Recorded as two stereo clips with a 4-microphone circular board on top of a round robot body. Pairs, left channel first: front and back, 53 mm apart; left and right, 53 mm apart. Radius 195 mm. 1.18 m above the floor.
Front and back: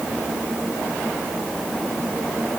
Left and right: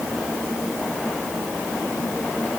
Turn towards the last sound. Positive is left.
No sound to turn to.